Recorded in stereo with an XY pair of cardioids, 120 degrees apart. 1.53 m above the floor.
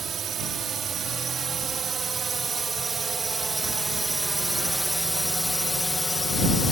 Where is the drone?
45° right; by 6.7 s 20° left.